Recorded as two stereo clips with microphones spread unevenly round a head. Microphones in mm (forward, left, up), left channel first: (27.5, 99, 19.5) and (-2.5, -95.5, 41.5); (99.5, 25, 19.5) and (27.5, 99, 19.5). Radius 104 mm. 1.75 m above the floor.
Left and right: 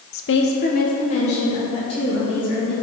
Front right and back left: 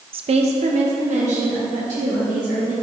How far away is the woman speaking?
About 0.8 m.